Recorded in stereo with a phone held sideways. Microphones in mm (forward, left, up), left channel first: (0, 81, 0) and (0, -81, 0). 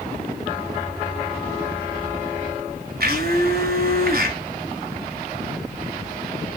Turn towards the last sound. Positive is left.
turn(degrees=-70)  # may be behind; listen again after turning